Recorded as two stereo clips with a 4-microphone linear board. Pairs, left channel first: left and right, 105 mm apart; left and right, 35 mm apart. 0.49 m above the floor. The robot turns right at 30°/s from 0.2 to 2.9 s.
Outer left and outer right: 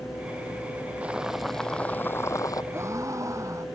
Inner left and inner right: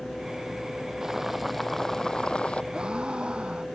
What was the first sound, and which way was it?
Boiling, 15° right.